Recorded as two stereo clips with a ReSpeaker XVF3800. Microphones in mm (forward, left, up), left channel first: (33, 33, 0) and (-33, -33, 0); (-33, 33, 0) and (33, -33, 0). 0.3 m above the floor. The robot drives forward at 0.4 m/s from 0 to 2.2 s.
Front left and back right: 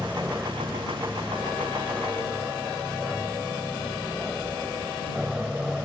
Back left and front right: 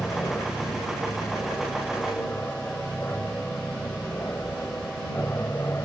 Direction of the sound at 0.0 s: 150° left.